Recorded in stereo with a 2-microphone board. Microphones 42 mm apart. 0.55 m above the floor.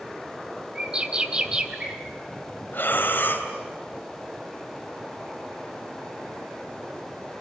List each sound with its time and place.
0.8 s a bird: 20° right (ahead or behind), 2.5 m
2.7 s breathing: 50° left (ahead or behind), 3 m